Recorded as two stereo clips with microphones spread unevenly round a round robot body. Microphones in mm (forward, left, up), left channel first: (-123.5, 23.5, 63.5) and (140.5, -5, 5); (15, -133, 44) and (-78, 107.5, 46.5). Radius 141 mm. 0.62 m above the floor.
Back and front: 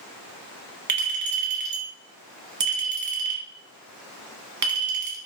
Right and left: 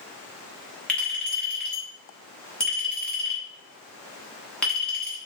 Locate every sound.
0.9 s a clink: 15° left, 1.0 m